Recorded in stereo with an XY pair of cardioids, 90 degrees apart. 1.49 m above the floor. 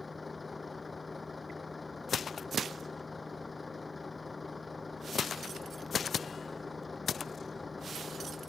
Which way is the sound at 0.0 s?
25° left.